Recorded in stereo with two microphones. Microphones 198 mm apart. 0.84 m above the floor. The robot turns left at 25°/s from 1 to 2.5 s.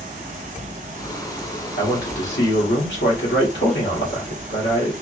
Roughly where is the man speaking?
Left.